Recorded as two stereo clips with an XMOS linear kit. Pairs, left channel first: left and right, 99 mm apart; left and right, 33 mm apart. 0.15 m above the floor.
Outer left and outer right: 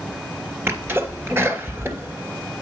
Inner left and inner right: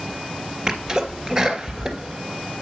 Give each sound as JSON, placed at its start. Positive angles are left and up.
{"t": 0.7, "sound": "a sneeze", "side_deg": -25, "distance_m": 2.5}